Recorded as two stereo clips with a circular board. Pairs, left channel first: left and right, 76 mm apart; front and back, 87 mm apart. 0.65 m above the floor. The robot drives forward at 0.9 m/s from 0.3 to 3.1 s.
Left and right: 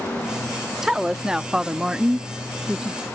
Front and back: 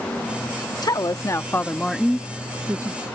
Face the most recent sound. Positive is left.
turn(degrees=-170)